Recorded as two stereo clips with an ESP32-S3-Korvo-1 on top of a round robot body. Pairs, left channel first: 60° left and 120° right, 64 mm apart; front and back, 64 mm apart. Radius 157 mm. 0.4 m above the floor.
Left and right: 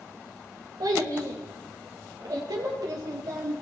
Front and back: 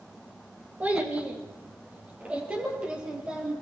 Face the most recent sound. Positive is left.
turn(degrees=-105)